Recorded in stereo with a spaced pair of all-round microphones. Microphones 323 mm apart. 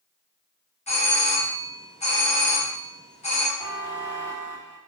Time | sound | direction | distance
0.9 | a doorbell | 20° left (ahead or behind) | 0.9 m
3.6 | a buzzer | 35° right (ahead or behind) | 1.1 m